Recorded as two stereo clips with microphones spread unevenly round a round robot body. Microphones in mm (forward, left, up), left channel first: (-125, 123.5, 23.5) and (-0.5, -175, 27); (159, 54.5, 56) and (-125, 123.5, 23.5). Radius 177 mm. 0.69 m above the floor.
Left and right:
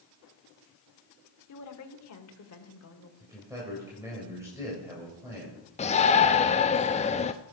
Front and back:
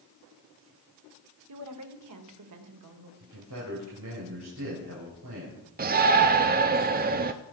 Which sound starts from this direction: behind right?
A man speaking, at 3.2 s.